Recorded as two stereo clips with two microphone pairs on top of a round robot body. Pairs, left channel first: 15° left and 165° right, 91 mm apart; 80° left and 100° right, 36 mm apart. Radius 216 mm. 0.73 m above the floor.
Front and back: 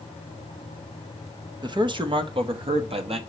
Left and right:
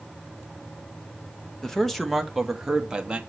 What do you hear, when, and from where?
1.6 s a man speaking: 155° left, 1.7 m; by 3.2 s 170° right, 2.0 m